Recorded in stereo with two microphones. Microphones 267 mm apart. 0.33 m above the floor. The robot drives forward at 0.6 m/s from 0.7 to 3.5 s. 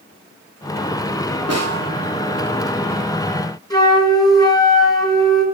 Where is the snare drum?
70° right (ahead or behind), 7 m.